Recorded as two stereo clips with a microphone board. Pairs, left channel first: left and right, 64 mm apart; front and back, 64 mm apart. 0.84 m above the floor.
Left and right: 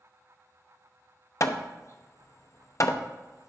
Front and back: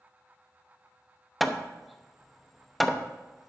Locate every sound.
1.4 s hammering: 90° left, 0.8 m